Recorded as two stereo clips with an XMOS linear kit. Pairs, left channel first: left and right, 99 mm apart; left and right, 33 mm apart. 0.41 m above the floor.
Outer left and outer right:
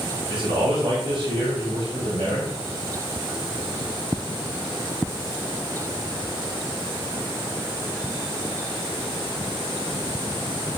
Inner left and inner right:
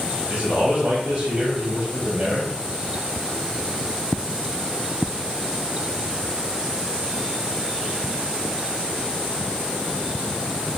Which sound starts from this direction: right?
A man speaking, at 0.3 s.